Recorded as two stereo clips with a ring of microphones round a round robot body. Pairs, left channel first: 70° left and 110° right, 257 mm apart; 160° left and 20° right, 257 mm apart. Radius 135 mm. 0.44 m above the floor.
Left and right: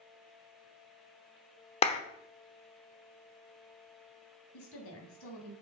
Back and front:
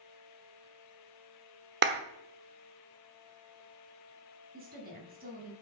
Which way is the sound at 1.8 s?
10° left.